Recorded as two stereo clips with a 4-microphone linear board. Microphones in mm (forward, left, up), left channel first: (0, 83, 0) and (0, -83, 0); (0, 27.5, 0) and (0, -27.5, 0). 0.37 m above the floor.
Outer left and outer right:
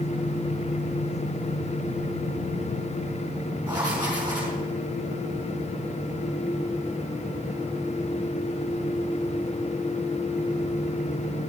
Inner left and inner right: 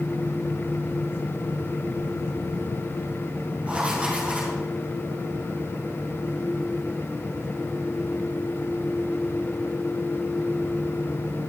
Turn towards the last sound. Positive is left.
turn(degrees=-25)  # may be behind; listen again after turning